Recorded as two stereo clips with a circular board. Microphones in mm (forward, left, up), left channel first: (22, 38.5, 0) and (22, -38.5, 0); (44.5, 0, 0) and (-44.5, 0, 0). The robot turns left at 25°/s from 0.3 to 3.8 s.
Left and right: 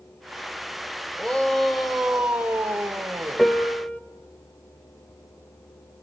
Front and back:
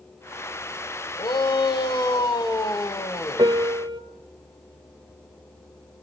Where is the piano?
170° left, 1.9 m; by 4.0 s 155° left, 1.9 m.